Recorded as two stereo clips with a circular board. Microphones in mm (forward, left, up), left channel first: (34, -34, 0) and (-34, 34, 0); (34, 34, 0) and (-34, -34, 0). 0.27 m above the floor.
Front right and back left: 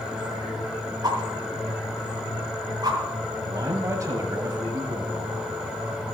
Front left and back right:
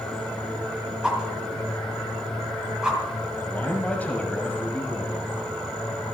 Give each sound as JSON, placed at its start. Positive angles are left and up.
{"t": 1.0, "sound": "a whoosh", "azimuth_deg": 145, "distance_m": 2.0}
{"t": 3.5, "sound": "a man speaking", "azimuth_deg": 110, "distance_m": 1.2}